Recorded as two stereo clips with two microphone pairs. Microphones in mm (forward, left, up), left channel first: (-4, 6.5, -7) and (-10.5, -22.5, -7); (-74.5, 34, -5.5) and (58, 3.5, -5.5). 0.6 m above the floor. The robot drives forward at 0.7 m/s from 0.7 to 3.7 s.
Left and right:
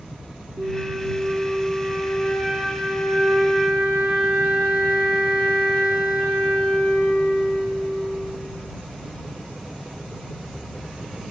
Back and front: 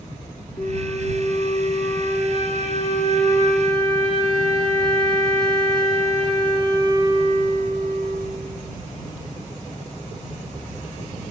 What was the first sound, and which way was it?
A flute, 130° right.